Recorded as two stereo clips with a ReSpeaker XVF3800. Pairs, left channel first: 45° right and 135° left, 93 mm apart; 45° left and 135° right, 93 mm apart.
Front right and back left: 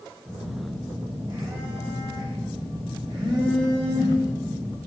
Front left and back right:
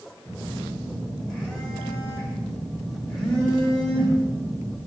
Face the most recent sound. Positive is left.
turn(degrees=130)